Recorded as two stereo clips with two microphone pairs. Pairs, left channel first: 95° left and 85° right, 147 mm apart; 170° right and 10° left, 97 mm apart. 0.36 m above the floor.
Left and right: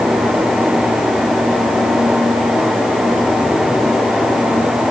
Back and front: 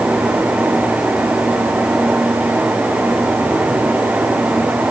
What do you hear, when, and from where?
Only background noise.